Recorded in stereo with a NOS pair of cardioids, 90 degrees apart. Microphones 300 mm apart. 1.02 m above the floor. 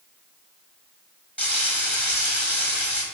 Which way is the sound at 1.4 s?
5° left.